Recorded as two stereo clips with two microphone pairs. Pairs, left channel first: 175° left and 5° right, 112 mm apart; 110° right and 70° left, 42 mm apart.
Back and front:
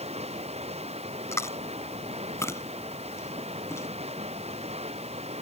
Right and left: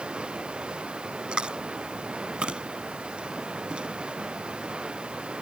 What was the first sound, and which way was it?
Running water, 5° left.